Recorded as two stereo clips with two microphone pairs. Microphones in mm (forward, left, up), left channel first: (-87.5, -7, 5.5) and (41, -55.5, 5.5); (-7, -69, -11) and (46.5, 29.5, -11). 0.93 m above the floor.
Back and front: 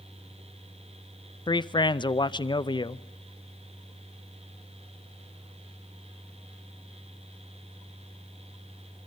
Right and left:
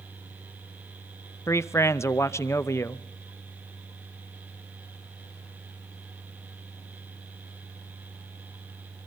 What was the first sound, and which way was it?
A man speaking, 165° right.